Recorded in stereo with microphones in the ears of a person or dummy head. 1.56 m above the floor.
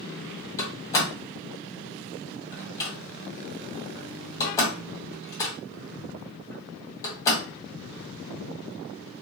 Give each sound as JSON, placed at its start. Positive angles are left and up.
{"t": 0.6, "sound": "a door slam", "side_deg": 15, "distance_m": 1.4}